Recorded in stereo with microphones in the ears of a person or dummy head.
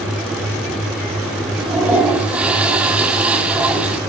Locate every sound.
1.6 s a toilet flushing: 10° right (ahead or behind), 1.7 m